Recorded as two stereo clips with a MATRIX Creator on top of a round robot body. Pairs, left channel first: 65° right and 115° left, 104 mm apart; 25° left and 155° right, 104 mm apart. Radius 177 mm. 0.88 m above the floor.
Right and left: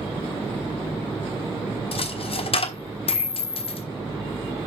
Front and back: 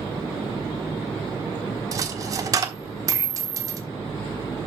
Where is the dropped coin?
100° right, 1.3 m.